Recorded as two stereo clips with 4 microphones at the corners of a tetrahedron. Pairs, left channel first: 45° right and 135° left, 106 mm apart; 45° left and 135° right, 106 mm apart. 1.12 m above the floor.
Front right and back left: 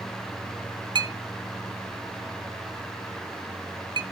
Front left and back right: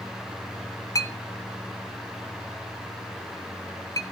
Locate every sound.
0.9 s a clink: 95° left, 0.6 m